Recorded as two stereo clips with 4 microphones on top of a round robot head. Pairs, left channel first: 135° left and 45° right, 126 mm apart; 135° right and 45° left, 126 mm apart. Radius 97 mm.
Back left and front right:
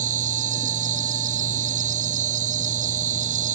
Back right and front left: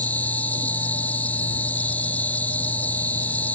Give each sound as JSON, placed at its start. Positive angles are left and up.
{"t": 0.0, "sound": "an insect", "azimuth_deg": -60}